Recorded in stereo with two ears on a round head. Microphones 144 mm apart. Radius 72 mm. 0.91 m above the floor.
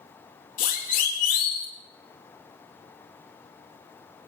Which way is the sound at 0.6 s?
55° left (ahead or behind).